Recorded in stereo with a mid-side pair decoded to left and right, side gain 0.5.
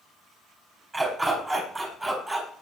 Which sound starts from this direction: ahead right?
A dog barking, at 0.9 s.